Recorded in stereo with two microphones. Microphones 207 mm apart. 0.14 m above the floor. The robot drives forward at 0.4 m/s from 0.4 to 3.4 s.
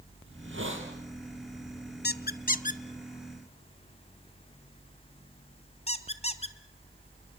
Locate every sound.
0.3 s a hiss: 75° right (ahead or behind), 4 m; by 0.9 s 70° right (ahead or behind), 4 m
2.0 s a squeak: 50° left (ahead or behind), 0.6 m; by 6.5 s 30° left (ahead or behind), 1.0 m